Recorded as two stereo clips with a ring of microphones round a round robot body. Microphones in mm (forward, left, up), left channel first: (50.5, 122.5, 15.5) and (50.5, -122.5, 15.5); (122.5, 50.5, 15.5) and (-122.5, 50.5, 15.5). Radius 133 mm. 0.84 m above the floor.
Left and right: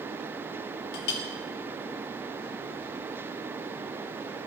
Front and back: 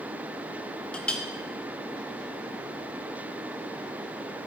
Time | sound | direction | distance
0.9 | a clink | 85° left | 0.9 m